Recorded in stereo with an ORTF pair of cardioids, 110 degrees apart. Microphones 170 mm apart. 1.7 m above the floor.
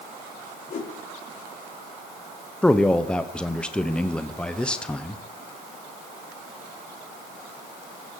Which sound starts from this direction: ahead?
A man speaking, at 2.6 s.